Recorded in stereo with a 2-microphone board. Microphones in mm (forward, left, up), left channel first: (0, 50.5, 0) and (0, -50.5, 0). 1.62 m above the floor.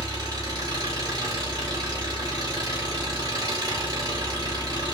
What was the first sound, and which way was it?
An engine running, 35° right (ahead or behind).